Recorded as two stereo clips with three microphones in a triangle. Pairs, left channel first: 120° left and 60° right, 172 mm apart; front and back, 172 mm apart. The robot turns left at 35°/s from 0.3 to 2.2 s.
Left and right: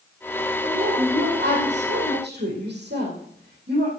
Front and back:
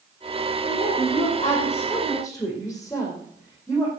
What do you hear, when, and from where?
0.6 s a woman speaking: 25° right, 5 m; by 3.9 s 80° right, 5 m